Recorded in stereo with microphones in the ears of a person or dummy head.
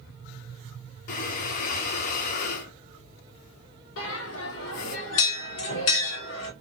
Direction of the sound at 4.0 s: 65° left (ahead or behind).